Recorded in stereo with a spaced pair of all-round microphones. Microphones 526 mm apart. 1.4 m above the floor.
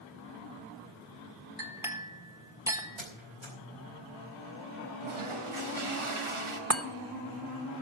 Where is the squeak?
65° right (ahead or behind), 4 m.